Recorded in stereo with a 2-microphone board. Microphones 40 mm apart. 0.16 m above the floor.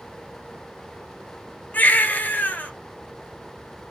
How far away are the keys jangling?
I don't hear keys jangling.